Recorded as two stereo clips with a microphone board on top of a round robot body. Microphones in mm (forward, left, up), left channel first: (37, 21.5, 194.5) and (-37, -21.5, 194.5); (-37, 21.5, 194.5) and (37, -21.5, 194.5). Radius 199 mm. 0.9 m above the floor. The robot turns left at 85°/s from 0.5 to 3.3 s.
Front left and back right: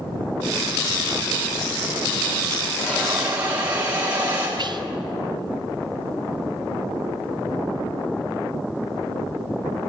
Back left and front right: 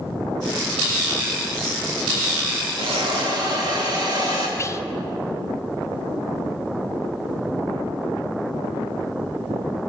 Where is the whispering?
160° right, 0.7 m.